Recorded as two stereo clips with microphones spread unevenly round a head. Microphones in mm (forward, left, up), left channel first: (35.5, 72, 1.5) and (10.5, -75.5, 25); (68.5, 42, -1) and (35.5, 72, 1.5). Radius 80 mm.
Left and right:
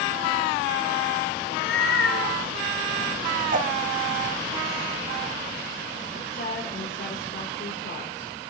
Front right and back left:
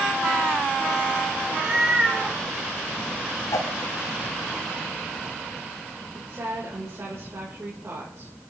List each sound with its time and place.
1.4 s a cat meowing: 75° left, 2.5 m
3.5 s a whoosh: 65° right, 1.1 m
6.1 s a woman speaking: 110° left, 5 m